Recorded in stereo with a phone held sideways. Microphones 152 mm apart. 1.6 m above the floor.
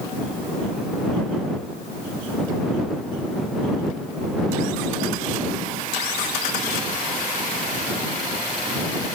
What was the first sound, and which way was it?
Only background noise.